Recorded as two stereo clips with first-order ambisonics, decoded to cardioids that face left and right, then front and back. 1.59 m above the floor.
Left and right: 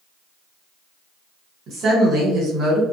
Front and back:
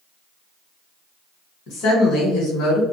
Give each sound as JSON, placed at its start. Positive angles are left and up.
{"t": 1.7, "sound": "a woman speaking", "azimuth_deg": -35, "distance_m": 1.3}